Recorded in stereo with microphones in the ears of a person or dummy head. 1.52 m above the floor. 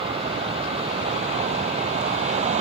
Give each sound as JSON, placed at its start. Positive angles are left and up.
{"t": 0.0, "sound": "a vehicle", "side_deg": -30}